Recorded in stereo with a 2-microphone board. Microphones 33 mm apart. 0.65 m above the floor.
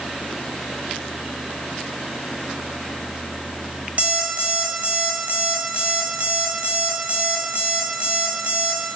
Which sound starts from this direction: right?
An alarm clock, at 4.0 s.